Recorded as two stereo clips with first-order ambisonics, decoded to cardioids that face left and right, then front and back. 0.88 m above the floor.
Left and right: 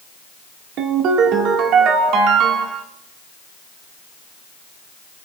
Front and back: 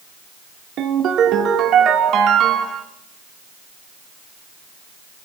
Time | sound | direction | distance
0.8 | a ringtone | 130° right | 1.6 m